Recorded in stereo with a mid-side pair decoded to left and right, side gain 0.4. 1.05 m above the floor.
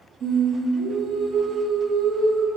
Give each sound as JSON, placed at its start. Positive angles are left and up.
{"t": 0.2, "sound": "singing", "azimuth_deg": -65, "distance_m": 0.7}